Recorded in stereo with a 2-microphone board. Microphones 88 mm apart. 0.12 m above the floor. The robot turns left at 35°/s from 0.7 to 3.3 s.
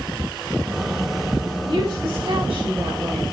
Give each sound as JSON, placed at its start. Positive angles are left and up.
{"t": 1.7, "sound": "a woman speaking", "azimuth_deg": -85, "distance_m": 7.0}